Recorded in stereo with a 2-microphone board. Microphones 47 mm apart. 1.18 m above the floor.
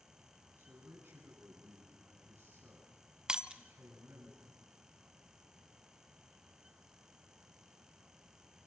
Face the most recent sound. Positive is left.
turn(degrees=-20)  # may be behind; listen again after turning